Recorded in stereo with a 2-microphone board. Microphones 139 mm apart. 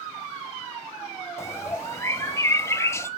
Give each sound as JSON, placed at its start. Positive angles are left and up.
{"t": 1.4, "sound": "a bird", "side_deg": 20, "distance_m": 1.1}